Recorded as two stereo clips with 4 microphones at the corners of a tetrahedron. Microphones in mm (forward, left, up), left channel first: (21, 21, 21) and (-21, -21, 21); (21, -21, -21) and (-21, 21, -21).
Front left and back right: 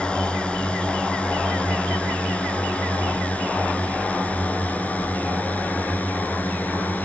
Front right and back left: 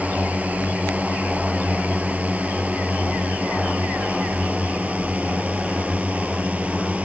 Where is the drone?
100° left; by 7.0 s 85° left.